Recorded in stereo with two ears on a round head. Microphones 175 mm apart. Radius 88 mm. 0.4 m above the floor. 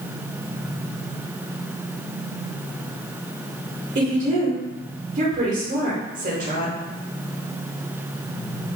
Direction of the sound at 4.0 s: 40° right (ahead or behind).